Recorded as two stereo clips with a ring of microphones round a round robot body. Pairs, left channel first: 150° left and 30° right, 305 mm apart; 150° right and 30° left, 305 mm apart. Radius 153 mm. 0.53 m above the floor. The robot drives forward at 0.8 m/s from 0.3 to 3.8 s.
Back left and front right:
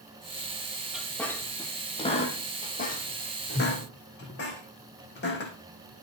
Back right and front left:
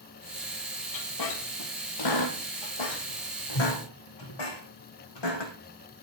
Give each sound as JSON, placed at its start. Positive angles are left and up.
{"t": 0.9, "sound": "a squeak", "azimuth_deg": -120, "distance_m": 1.9}